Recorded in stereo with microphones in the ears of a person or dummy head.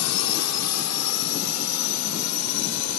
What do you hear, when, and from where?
0.0 s a drone: 80° left